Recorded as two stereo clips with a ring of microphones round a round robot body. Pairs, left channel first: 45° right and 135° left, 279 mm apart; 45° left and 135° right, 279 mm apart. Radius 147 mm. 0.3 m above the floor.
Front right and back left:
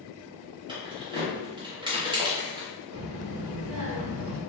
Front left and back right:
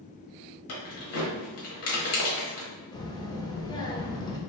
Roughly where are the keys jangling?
Ahead left.